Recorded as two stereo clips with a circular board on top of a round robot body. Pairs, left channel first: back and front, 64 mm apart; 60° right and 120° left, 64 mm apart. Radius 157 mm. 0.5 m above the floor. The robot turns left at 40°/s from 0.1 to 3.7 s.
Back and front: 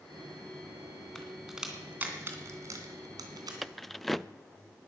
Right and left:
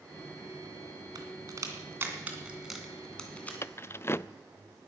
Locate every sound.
1.1 s a crack: 100° left, 2.5 m; by 3.5 s 5° left, 2.5 m
3.6 s keys jangling: 90° right, 0.5 m